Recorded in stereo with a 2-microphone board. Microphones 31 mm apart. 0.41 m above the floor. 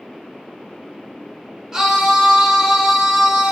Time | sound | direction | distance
1.7 | a scream | 20° right (ahead or behind) | 1.1 m